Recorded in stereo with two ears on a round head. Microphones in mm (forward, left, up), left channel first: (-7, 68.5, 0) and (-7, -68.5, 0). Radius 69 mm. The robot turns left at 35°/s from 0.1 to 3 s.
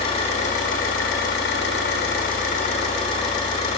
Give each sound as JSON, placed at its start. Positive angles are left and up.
{"t": 0.0, "sound": "an engine running", "azimuth_deg": 140, "distance_m": 1.2}